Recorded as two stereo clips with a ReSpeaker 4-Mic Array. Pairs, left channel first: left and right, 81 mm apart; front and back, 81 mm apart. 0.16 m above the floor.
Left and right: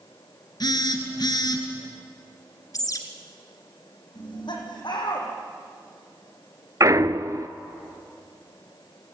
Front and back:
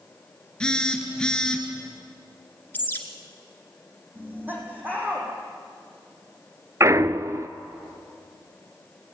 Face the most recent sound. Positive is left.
turn(degrees=-130)